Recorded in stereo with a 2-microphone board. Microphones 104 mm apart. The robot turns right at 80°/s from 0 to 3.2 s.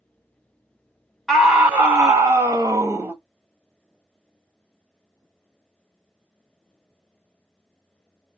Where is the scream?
175° left, 0.6 m; by 3.1 s 40° right, 0.6 m.